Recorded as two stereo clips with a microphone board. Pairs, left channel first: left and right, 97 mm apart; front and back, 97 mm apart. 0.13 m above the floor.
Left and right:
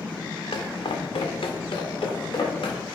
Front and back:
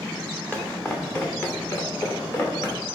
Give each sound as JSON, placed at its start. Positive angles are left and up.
{"t": 0.5, "sound": "footsteps", "azimuth_deg": 75, "distance_m": 1.3}